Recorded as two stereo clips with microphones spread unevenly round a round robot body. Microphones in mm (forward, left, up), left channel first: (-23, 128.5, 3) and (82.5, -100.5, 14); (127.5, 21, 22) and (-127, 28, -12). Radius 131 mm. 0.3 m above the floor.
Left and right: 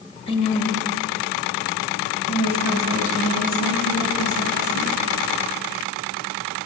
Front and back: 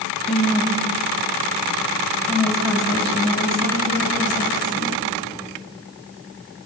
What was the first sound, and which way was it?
A woman speaking, 105° left.